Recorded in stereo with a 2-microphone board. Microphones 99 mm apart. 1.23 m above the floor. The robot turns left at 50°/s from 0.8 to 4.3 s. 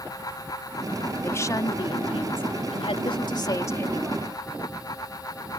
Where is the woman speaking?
155° left; by 4.3 s 5° left.